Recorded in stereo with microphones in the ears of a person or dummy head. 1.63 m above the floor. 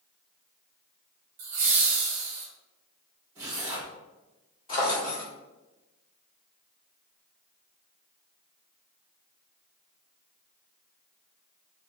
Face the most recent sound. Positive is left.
turn(degrees=30)  # may be behind; listen again after turning